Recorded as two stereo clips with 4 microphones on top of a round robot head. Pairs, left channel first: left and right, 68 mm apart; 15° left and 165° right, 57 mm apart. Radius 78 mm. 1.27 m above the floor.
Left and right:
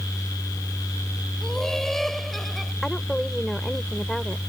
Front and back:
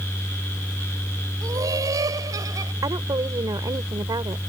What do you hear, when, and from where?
1.4 s laughter: 175° left; by 2.7 s straight behind
2.8 s a woman speaking: 175° left